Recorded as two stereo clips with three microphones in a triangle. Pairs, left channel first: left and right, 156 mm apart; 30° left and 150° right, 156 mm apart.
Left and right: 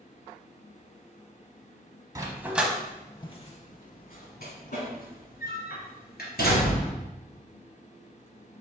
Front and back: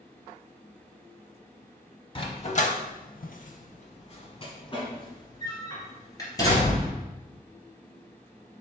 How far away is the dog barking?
About 0.7 m.